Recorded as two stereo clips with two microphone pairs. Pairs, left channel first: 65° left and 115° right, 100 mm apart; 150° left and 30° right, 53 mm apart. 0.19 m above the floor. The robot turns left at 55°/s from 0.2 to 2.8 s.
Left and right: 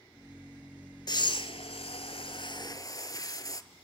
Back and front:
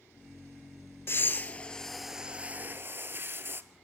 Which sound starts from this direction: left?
Breathing, at 1.1 s.